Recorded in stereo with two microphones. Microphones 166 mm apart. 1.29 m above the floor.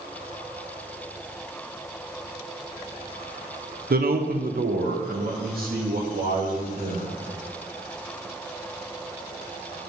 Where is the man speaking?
65° right (ahead or behind), 0.7 m; by 7.1 s 60° right (ahead or behind), 3 m.